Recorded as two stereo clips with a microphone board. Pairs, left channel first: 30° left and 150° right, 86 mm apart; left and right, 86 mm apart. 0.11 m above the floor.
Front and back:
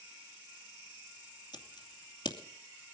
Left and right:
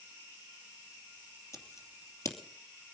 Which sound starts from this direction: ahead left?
Scissors, at 1.5 s.